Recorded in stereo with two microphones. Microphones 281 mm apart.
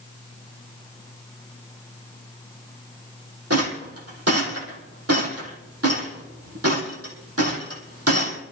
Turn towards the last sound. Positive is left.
turn(degrees=-65)  # may be behind; listen again after turning